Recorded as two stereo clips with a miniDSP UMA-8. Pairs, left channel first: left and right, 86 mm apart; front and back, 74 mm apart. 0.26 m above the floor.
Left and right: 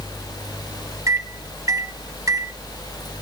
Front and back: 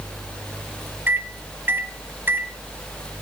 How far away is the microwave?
About 1.2 m.